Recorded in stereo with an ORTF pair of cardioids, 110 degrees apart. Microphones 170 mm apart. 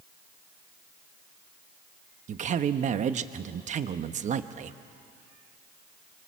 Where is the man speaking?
45° right, 1.2 m.